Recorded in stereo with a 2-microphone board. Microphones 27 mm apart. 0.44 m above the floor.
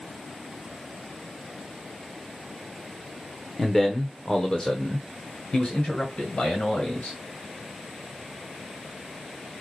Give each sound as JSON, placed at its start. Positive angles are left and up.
{"t": 3.6, "sound": "a man speaking", "side_deg": 10, "distance_m": 1.0}